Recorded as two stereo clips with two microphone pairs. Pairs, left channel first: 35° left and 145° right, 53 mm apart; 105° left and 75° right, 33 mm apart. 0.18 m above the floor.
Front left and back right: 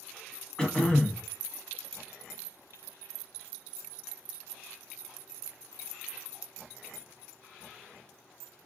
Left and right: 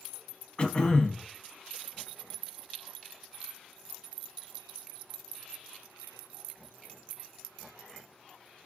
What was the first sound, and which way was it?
Throat clearing, 100° left.